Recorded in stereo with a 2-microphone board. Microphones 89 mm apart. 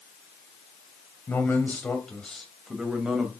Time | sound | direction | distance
1.3 | a man speaking | 25° left (ahead or behind) | 2 m